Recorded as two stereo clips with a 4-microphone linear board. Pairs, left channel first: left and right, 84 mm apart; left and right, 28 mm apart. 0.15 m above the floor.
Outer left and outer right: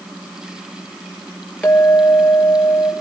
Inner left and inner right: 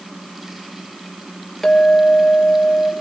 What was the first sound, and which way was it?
A clink, 20° left (ahead or behind).